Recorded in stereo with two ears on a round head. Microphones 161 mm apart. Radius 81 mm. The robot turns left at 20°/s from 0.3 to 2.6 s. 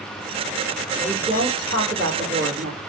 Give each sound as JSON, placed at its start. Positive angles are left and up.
{"t": 1.0, "sound": "a woman speaking", "azimuth_deg": -50, "distance_m": 2.0}